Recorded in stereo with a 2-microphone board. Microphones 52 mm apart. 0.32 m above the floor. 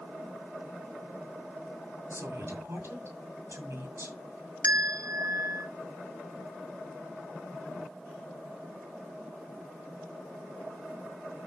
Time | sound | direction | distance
2.1 | a woman speaking | 55° right (ahead or behind) | 2.5 m
4.6 | a bell | 65° right (ahead or behind) | 0.6 m